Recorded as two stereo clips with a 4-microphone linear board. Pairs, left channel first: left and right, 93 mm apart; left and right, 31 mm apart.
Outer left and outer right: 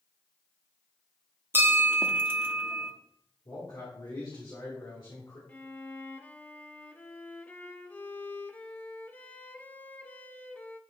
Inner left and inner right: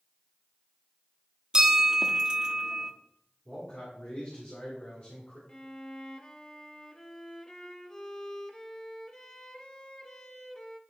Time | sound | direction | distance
1.5 | a bell | 25° right (ahead or behind) | 0.8 m
3.5 | a man speaking | 55° left (ahead or behind) | 2 m
5.5 | a violin | 20° left (ahead or behind) | 0.6 m